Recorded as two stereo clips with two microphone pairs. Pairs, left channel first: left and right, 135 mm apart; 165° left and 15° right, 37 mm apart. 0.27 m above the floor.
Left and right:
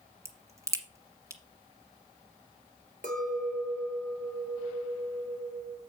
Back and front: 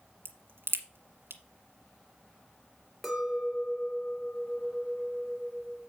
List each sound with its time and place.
0.2 s a crack: 20° right, 1.4 m
3.0 s a clink: 110° right, 2.5 m